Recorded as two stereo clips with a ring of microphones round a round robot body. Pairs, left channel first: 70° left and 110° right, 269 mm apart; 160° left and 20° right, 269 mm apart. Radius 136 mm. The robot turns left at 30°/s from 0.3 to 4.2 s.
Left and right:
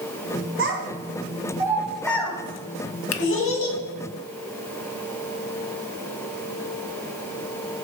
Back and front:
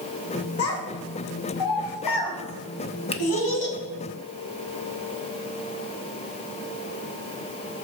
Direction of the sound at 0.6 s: 160° right.